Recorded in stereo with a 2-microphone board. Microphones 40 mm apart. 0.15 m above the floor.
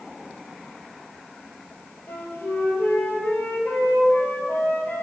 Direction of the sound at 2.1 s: 65° left (ahead or behind).